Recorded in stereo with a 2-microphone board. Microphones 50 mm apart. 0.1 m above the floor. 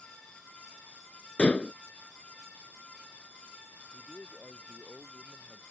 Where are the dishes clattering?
25° left (ahead or behind).